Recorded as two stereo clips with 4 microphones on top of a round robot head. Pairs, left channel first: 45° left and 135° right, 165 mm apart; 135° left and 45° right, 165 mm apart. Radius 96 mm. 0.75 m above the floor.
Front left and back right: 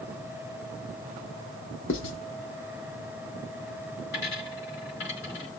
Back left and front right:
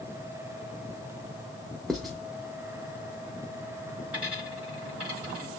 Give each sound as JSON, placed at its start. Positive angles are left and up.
{"t": 1.9, "sound": "writing", "azimuth_deg": 45, "distance_m": 0.6}
{"t": 4.1, "sound": "a dropped coin", "azimuth_deg": 40, "distance_m": 3.5}